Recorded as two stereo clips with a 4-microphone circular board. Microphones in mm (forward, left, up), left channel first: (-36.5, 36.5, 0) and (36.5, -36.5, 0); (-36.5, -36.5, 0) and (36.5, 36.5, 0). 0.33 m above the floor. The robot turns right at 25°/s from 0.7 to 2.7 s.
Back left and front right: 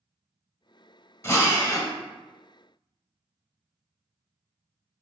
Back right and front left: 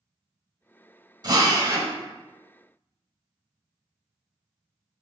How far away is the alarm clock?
I don't hear an alarm clock.